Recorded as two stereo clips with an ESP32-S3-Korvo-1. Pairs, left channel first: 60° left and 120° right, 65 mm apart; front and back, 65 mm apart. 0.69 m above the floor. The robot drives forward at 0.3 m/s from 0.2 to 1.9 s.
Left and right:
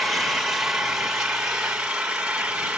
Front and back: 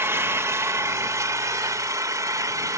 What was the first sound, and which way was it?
An engine running, 155° left.